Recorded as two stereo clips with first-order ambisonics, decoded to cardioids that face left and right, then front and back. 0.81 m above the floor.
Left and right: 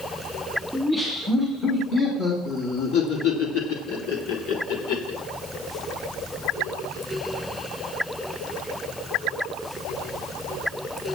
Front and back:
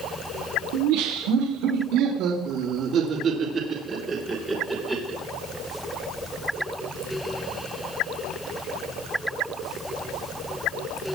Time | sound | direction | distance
0.7 | laughter | 175° left | 2.5 m